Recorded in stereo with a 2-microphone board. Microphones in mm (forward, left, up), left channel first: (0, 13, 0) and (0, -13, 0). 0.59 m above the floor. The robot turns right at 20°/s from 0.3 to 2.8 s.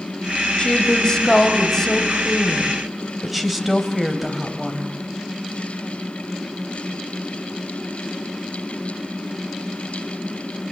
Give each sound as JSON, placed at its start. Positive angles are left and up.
{"t": 0.6, "sound": "a woman speaking", "azimuth_deg": 140, "distance_m": 3.0}